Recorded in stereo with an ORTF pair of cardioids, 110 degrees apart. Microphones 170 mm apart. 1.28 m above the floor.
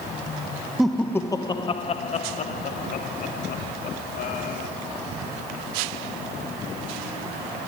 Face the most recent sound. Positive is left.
turn(degrees=65)